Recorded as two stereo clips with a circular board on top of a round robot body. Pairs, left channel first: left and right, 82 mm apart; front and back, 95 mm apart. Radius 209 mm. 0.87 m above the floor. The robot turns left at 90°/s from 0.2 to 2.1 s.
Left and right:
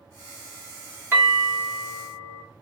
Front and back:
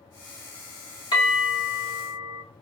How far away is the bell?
About 1.6 m.